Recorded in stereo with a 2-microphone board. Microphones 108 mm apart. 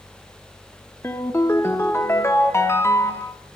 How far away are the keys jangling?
I don't hear keys jangling.